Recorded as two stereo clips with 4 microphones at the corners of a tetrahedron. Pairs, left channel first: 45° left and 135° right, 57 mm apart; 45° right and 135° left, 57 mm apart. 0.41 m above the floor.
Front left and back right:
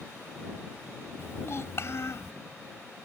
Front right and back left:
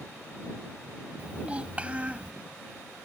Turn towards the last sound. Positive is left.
turn(degrees=75)